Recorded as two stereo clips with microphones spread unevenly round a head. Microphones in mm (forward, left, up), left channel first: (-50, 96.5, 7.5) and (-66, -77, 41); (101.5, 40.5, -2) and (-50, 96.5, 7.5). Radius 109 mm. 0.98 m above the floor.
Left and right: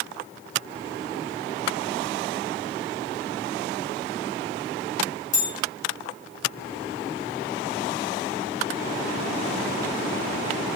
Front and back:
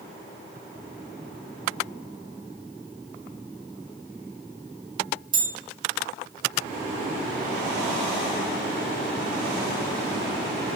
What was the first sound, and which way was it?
A bell, 125° left.